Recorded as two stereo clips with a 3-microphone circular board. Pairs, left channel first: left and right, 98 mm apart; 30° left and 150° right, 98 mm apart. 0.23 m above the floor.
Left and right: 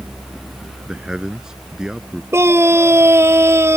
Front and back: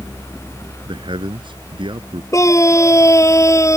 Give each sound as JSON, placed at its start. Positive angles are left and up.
{"t": 0.8, "sound": "a man speaking", "azimuth_deg": -175}
{"t": 2.3, "sound": "a scream", "azimuth_deg": -30}